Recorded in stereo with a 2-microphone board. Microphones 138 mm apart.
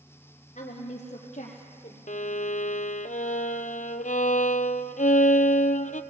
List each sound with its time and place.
0.6 s a woman speaking: 55° left (ahead or behind), 3 m
2.1 s a violin: 70° left (ahead or behind), 0.7 m